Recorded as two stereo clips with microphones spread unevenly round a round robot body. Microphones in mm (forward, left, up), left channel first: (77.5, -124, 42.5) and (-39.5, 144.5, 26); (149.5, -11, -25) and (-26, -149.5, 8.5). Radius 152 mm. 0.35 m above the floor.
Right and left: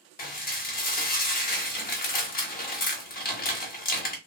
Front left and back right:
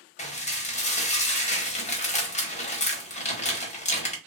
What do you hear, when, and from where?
0.2 s dishes clattering: 10° right, 0.9 m